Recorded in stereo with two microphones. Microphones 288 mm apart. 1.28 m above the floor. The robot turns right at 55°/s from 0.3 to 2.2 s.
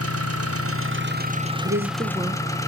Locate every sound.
0.0 s an engine running: 90° right, 1.3 m; by 2.7 s 15° left, 1.3 m
1.6 s a woman speaking: 45° right, 1.1 m; by 2.4 s 15° right, 1.1 m